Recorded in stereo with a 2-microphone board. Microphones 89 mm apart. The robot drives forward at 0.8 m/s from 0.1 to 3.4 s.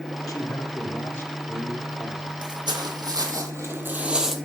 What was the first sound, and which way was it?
A man speaking, 40° left (ahead or behind).